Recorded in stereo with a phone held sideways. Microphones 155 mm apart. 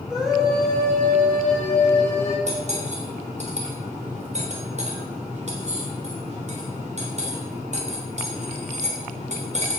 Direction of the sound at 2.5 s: 50° right (ahead or behind).